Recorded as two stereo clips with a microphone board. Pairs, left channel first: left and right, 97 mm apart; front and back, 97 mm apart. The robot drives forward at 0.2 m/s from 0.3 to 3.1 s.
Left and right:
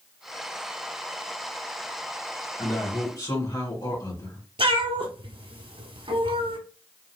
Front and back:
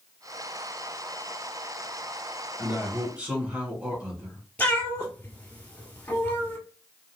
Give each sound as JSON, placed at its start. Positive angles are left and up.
{"t": 2.6, "sound": "a man speaking", "azimuth_deg": 105, "distance_m": 1.9}
{"t": 4.6, "sound": "a cat meowing", "azimuth_deg": -70, "distance_m": 1.1}